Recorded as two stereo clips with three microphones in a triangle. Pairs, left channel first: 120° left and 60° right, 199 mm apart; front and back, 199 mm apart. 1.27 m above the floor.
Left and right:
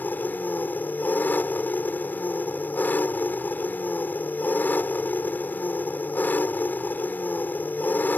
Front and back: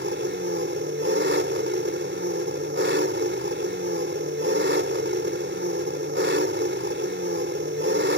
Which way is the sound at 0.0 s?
160° right.